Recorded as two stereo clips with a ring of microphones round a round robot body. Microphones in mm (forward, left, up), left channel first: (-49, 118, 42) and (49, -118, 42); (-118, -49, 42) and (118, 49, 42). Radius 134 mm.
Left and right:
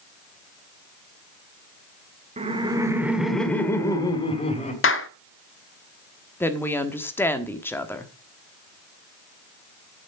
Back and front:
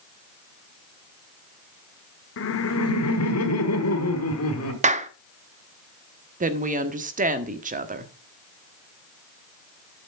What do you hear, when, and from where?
2.4 s laughter: 130° right, 1.5 m; by 4.7 s 175° left, 2.5 m
4.8 s a clap: 80° left, 0.7 m
6.4 s a woman speaking: 40° left, 1.2 m